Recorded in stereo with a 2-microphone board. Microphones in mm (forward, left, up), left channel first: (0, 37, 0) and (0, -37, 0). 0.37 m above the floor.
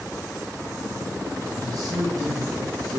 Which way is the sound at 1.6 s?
60° right (ahead or behind).